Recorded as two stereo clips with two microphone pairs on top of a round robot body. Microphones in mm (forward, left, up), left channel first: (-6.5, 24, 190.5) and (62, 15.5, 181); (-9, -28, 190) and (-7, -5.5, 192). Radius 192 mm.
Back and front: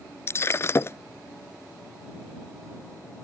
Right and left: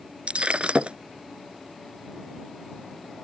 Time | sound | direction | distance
0.3 | breaking glass | 120° left | ?